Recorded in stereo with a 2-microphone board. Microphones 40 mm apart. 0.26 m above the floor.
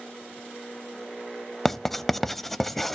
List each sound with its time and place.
1.6 s writing: 10° left (ahead or behind), 0.5 m